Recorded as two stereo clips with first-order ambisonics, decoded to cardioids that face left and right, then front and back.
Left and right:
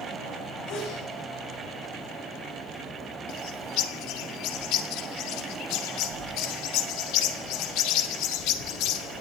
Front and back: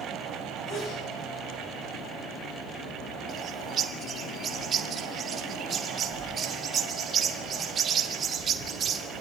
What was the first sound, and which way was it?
A sneeze, 55° left.